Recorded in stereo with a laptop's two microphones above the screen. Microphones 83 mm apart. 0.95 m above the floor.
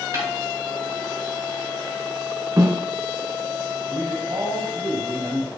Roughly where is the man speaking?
Right.